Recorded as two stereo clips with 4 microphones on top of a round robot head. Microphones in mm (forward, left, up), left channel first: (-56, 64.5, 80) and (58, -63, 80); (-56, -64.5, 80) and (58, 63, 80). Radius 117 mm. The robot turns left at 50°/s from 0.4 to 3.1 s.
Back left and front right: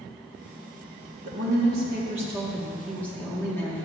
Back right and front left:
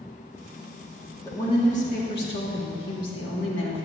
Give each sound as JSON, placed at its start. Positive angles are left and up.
{"t": 1.2, "sound": "a woman speaking", "azimuth_deg": -60, "distance_m": 1.6}